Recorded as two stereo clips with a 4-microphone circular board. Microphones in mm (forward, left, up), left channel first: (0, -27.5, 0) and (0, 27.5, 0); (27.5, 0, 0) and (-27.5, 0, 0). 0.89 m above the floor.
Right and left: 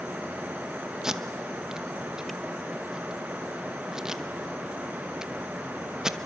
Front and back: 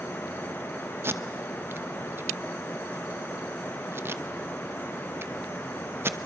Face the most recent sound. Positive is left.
turn(degrees=165)